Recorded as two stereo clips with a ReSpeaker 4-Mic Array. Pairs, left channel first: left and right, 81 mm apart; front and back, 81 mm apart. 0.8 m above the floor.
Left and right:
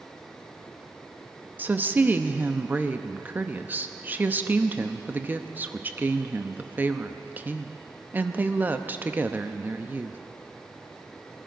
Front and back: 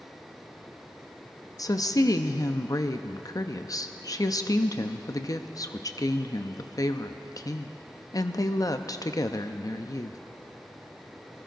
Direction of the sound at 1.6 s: 30° right.